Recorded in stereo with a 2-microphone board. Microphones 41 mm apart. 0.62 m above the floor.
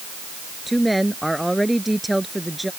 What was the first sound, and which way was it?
A woman speaking, centre (ahead or behind).